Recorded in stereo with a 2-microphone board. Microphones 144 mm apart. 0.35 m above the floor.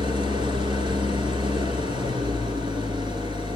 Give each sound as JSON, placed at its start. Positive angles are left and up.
{"t": 0.0, "sound": "an engine running", "side_deg": -35, "distance_m": 1.8}